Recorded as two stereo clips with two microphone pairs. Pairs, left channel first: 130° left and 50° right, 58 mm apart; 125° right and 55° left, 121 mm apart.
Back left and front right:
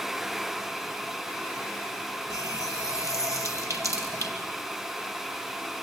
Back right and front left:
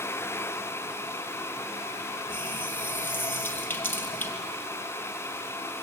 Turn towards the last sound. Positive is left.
turn(degrees=-55)